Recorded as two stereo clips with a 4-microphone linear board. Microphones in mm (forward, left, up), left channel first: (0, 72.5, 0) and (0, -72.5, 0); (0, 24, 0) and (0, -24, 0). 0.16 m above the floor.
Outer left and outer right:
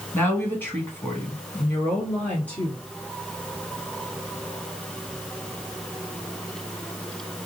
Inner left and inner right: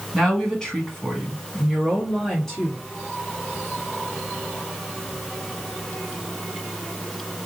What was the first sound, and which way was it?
A woman speaking, 15° left (ahead or behind).